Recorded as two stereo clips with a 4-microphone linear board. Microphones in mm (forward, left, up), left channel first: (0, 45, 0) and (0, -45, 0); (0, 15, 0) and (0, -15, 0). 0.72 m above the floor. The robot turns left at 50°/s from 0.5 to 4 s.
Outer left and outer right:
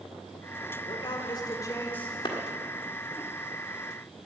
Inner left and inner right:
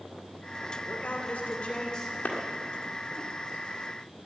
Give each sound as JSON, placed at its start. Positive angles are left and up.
{"t": 0.8, "sound": "a man speaking", "azimuth_deg": 80, "distance_m": 2.0}
{"t": 2.2, "sound": "a clap", "side_deg": 60, "distance_m": 1.7}